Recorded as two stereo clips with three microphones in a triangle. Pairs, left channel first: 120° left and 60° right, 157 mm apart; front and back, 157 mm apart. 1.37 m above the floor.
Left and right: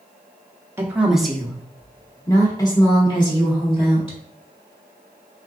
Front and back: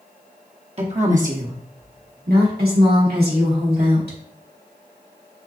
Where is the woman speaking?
135° right, 0.7 m; by 4.2 s 175° left, 2.5 m.